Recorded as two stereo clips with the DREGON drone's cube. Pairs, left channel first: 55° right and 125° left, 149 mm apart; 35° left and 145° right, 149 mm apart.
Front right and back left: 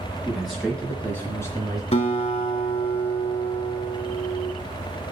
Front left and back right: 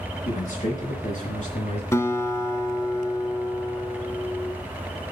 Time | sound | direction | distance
0.2 | a man speaking | 35° left | 4 m
1.9 | a guitar | 30° right | 0.9 m